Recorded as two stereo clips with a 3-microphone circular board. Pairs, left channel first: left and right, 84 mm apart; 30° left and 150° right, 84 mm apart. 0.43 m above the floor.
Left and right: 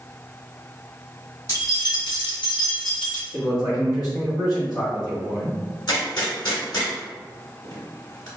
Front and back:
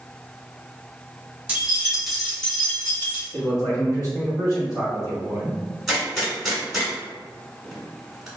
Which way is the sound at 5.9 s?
125° left.